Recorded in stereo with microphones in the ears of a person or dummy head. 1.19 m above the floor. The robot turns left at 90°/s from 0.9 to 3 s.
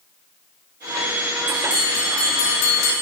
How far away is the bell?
About 1.7 m.